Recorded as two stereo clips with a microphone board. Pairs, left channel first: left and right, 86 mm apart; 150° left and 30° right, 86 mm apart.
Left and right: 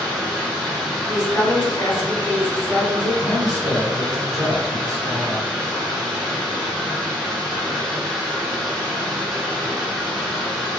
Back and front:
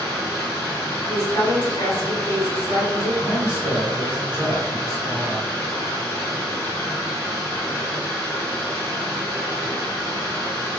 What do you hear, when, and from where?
0.0 s running water: straight behind, 1.3 m
1.1 s a woman speaking: 125° left, 1.6 m
3.2 s a man speaking: straight behind, 1.4 m